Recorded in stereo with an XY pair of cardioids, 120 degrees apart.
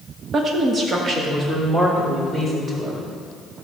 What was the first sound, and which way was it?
A woman speaking, 40° right.